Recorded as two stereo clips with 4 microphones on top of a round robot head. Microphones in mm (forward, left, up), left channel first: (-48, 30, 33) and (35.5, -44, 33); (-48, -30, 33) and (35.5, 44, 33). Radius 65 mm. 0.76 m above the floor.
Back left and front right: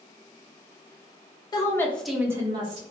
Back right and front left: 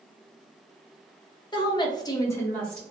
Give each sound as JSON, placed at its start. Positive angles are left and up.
{"t": 1.5, "sound": "a woman speaking", "azimuth_deg": -175, "distance_m": 0.8}